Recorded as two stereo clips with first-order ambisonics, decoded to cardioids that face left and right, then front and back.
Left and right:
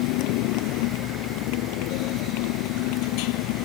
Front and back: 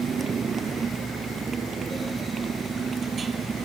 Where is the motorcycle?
110° left; by 3.6 s 105° left.